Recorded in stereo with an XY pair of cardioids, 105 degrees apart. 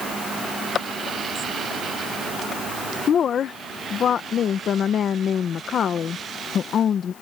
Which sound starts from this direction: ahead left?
A woman speaking, at 3.1 s.